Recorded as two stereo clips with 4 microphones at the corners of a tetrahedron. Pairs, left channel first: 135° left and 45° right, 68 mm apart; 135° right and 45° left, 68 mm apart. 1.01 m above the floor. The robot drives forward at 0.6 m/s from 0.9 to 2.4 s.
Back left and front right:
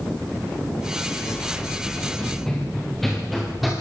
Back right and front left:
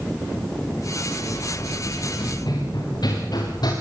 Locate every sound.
1.3 s running footsteps: 145° right, 7 m; by 3.7 s 135° right, 6 m